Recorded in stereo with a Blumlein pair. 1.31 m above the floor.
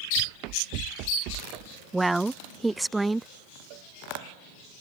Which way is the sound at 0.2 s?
40° right.